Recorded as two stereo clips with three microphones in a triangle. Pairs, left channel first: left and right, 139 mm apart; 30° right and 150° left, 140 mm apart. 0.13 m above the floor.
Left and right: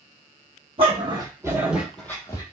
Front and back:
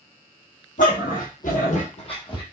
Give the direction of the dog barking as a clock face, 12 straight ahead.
1 o'clock.